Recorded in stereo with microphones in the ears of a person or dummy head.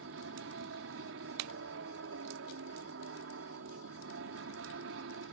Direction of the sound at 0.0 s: 65° right (ahead or behind).